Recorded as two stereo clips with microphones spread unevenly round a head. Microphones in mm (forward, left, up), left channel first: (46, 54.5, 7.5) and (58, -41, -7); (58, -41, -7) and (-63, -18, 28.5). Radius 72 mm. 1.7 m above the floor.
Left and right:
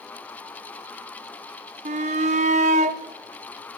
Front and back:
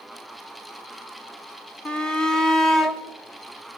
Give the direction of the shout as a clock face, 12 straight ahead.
3 o'clock.